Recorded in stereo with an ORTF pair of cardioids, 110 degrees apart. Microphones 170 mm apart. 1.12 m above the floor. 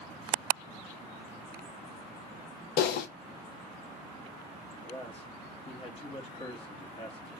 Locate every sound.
2.8 s typing on a keyboard: 65° left, 0.7 m
4.8 s a man speaking: 35° left, 1.4 m